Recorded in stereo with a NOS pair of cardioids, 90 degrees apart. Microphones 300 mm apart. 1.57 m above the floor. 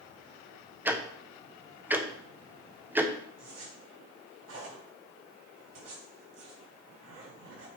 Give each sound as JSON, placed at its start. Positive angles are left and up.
{"t": 0.8, "sound": "ticking", "azimuth_deg": -5, "distance_m": 1.0}
{"t": 3.4, "sound": "a zipper", "azimuth_deg": -55, "distance_m": 5.0}